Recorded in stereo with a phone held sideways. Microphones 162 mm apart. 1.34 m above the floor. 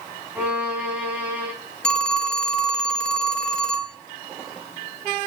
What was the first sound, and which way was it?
A violin, 10° right (ahead or behind).